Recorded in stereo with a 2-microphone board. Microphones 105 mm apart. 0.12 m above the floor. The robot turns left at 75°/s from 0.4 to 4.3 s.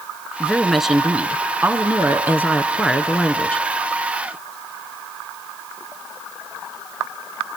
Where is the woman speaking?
5° left (ahead or behind), 1.1 m; by 3.6 s 15° left (ahead or behind), 1.1 m.